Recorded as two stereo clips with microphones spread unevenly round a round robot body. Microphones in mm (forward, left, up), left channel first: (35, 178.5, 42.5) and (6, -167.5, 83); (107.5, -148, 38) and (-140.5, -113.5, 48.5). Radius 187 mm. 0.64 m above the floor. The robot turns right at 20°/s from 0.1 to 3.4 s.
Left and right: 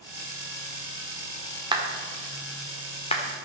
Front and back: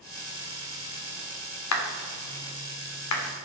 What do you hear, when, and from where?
1.7 s a clap: 15° right, 1.8 m; by 3.2 s 15° left, 1.8 m